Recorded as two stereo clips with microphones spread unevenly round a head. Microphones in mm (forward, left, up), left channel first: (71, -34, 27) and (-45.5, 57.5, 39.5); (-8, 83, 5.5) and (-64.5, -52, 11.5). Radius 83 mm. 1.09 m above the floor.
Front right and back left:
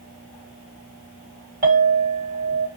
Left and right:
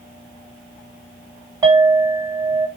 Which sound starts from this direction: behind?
A clink, at 1.6 s.